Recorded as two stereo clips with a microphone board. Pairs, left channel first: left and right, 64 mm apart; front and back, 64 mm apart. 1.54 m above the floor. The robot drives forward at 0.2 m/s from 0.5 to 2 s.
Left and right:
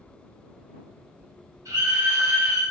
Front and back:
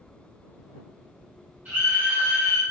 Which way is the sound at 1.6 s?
130° right.